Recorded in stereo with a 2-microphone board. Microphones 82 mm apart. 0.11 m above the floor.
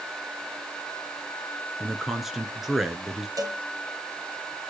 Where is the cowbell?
45° right (ahead or behind), 2.5 m.